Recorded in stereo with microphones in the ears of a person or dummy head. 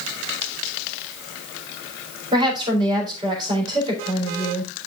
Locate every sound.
2.3 s a woman speaking: 25° right (ahead or behind), 4 m